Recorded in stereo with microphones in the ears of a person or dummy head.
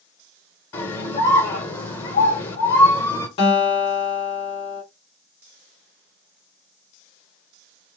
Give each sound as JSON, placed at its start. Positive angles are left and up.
{"t": 0.7, "sound": "a scream", "side_deg": 25, "distance_m": 1.1}
{"t": 3.4, "sound": "a guitar", "side_deg": 35, "distance_m": 1.5}